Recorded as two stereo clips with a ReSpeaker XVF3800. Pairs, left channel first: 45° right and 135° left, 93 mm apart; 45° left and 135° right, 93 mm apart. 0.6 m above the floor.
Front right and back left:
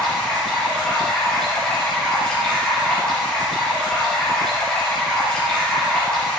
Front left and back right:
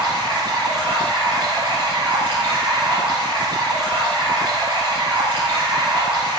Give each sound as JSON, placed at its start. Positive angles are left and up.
{"t": 0.0, "sound": "running water", "azimuth_deg": -125, "distance_m": 5.5}